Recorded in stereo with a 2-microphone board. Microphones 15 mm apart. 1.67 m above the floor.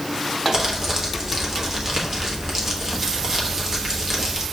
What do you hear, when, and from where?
0.5 s crumpling: 30° right (ahead or behind), 1.1 m